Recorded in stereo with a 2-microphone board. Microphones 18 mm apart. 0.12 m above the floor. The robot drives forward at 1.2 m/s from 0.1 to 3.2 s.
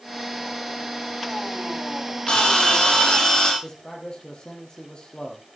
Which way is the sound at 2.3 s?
65° left (ahead or behind).